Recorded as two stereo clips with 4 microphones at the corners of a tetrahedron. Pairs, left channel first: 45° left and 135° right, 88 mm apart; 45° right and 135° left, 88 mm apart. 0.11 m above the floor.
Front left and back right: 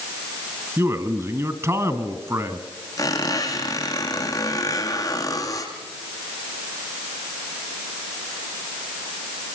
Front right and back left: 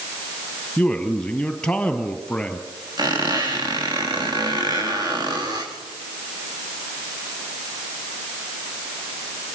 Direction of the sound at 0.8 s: 115° right.